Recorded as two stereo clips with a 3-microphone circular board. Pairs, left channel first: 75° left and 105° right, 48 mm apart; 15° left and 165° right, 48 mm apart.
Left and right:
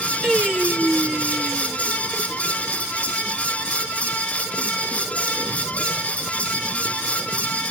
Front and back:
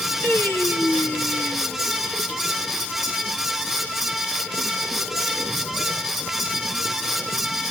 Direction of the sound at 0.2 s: Straight ahead.